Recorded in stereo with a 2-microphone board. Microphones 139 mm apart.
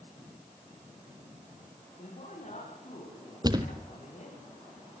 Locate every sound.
2.0 s a woman speaking: 55° left (ahead or behind), 8.5 m
3.4 s a thud: 30° right (ahead or behind), 1.6 m